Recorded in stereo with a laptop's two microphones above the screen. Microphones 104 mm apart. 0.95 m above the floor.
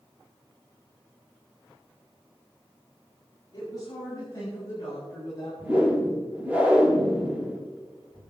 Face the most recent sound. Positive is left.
turn(degrees=-15)  # may be behind; listen again after turning